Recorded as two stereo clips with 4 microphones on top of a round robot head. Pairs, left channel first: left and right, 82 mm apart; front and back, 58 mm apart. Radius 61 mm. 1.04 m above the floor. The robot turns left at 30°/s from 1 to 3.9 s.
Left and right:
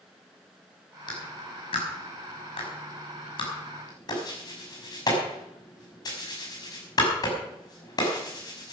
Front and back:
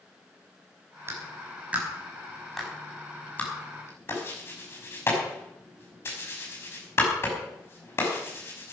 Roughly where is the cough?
No cough in this recording.